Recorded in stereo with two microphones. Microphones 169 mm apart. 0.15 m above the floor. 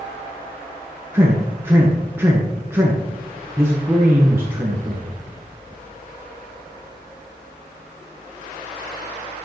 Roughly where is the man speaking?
Centre.